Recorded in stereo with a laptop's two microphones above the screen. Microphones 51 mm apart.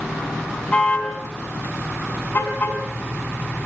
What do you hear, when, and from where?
0.7 s a car horn: 25° left (ahead or behind), 5.5 m; by 2.8 s 45° left (ahead or behind), 5.5 m